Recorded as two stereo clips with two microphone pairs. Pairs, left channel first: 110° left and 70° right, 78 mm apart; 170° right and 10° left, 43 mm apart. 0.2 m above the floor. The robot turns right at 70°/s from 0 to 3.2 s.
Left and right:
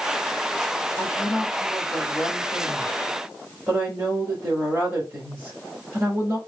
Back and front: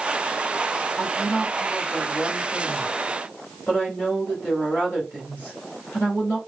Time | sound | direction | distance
1.0 | a woman speaking | 80° left | 3 m